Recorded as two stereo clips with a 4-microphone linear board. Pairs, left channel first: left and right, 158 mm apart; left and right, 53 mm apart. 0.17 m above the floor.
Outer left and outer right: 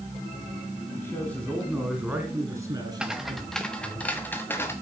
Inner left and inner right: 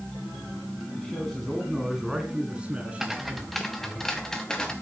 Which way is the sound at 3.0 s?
5° right (ahead or behind).